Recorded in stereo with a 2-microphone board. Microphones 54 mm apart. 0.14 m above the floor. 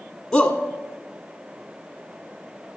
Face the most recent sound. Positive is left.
turn(degrees=10)  # may be behind; listen again after turning